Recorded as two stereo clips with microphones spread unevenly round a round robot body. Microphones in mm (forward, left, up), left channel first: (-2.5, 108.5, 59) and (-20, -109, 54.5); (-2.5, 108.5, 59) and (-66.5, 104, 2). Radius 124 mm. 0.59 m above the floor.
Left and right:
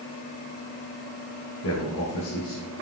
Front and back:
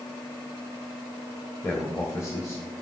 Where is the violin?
I don't hear a violin.